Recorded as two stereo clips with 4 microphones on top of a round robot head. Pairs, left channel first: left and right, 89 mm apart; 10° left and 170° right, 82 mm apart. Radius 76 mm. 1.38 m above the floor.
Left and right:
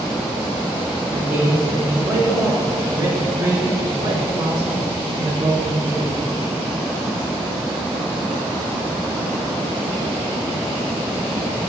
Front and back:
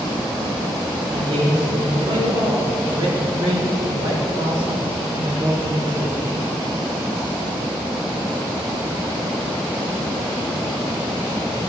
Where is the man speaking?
165° right, 2.5 m; by 6.2 s 95° right, 1.1 m.